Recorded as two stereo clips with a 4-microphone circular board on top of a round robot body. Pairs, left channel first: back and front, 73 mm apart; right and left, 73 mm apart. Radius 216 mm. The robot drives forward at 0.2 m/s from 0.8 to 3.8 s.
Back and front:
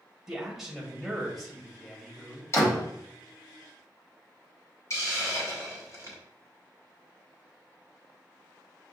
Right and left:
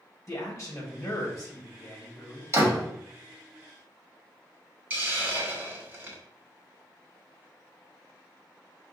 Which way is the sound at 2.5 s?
135° left.